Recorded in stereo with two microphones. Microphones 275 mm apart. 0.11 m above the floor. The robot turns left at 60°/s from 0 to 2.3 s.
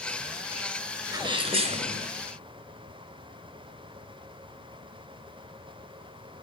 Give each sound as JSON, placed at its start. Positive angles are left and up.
{"t": 1.1, "sound": "a sneeze", "side_deg": -15, "distance_m": 1.4}